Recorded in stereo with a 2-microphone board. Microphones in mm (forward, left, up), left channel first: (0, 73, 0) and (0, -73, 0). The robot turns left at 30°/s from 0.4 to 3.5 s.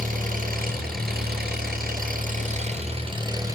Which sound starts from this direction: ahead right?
An engine running, at 0.0 s.